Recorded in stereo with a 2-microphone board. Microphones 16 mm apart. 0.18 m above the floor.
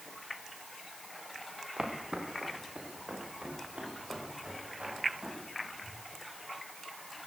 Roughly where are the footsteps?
Right.